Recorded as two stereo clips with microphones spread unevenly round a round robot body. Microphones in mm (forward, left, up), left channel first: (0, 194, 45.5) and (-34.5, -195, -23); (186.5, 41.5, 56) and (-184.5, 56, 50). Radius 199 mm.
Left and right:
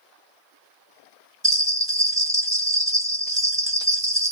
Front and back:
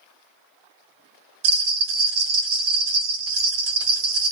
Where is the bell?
Straight behind, 1.1 m.